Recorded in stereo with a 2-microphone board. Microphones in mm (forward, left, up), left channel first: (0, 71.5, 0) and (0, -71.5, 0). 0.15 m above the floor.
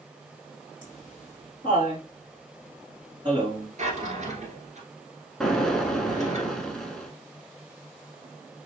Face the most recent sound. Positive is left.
turn(degrees=5)  # may be behind; listen again after turning